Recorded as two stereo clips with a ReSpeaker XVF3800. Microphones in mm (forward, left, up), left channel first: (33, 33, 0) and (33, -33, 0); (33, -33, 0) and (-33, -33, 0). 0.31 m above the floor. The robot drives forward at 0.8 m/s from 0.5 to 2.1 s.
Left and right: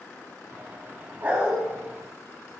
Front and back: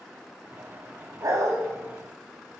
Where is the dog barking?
145° right, 0.8 m; by 1.6 s 155° right, 1.1 m.